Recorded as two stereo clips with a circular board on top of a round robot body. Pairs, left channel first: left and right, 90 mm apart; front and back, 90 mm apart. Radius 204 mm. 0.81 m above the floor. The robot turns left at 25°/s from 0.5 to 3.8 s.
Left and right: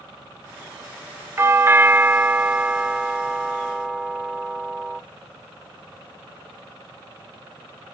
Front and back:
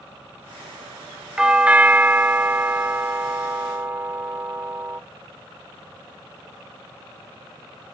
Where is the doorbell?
110° right, 0.8 m; by 5.0 s 170° right, 0.8 m.